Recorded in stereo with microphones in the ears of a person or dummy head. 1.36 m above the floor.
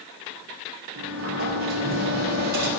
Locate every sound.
0.9 s a sliding door: 55° right (ahead or behind), 2.5 m